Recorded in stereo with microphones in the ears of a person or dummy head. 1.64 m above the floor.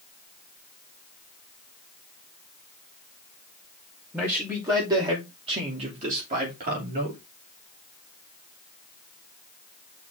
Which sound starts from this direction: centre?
A man speaking, at 4.1 s.